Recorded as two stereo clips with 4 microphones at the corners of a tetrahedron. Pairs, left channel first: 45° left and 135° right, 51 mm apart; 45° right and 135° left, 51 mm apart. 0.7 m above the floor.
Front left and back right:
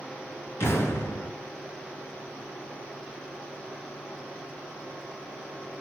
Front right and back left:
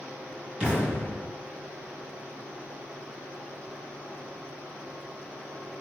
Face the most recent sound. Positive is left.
turn(degrees=70)